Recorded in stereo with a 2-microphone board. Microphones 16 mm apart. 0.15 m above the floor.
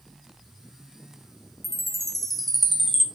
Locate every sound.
1.6 s a chime: 15° left (ahead or behind), 0.6 m